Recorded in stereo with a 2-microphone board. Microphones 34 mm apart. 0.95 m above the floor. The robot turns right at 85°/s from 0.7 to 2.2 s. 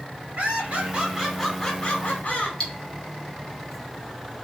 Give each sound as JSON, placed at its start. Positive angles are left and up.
{"t": 0.4, "sound": "laughter", "azimuth_deg": -55, "distance_m": 1.5}
{"t": 2.6, "sound": "cutlery clinking", "side_deg": 30, "distance_m": 0.8}